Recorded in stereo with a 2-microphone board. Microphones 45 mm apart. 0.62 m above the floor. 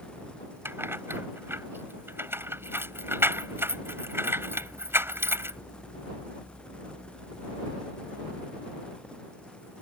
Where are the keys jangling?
70° right (ahead or behind).